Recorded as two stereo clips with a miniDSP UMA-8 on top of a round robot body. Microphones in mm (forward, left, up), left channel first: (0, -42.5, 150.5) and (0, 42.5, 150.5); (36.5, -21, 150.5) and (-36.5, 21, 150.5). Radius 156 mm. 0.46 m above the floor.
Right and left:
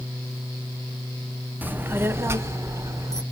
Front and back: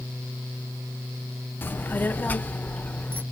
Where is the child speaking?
30° left, 0.9 m; by 3.2 s 40° left, 1.8 m.